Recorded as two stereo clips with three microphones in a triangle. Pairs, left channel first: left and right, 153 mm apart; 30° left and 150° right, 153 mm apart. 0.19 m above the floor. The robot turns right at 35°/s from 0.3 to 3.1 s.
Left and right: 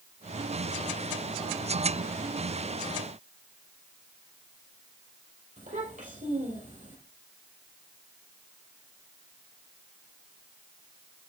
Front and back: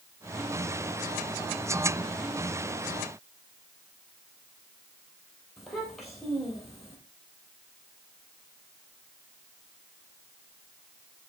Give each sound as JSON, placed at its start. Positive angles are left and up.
{"t": 5.6, "sound": "a child speaking", "azimuth_deg": -60, "distance_m": 3.5}